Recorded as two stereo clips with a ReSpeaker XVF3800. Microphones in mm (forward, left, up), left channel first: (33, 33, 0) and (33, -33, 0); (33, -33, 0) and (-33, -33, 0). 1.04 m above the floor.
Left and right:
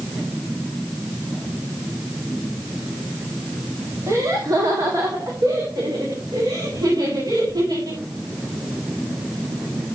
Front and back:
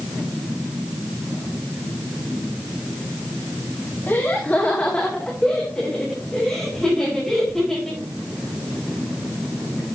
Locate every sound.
4.1 s laughter: 55° right, 1.9 m; by 8.0 s 80° right, 7.5 m